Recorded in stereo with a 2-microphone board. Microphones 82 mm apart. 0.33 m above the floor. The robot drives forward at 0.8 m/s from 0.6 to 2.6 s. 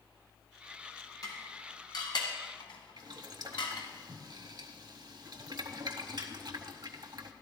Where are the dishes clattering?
45° left (ahead or behind), 2 m; by 3.9 s 70° left (ahead or behind), 1.6 m.